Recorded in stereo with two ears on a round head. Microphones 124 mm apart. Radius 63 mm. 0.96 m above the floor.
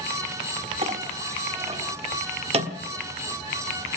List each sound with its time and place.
0.8 s a clink: 45° right (ahead or behind), 1.3 m